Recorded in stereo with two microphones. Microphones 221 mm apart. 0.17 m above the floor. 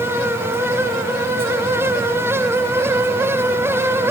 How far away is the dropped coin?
I don't hear a dropped coin.